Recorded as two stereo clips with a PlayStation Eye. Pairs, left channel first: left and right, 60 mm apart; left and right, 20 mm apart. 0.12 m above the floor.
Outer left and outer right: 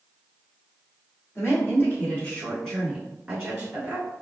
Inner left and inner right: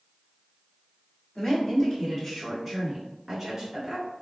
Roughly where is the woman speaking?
Left.